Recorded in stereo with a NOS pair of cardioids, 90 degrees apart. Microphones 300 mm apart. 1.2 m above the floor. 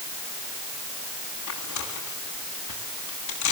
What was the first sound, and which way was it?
Tearing paper, 65° left.